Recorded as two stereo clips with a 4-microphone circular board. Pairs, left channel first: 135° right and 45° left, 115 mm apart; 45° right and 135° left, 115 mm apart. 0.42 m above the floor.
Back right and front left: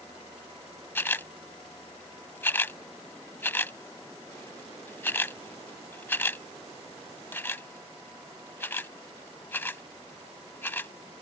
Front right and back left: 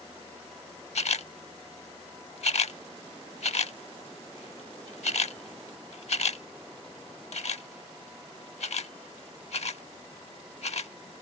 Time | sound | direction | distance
0.9 | a camera shutter | 65° right | ?